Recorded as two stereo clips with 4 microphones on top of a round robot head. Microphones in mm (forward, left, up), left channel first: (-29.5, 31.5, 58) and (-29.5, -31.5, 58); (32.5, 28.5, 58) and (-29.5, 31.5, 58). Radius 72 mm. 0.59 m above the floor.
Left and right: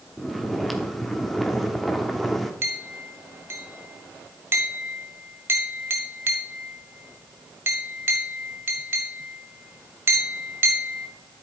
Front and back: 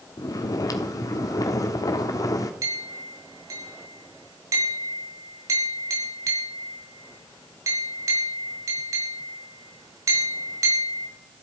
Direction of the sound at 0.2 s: Straight ahead.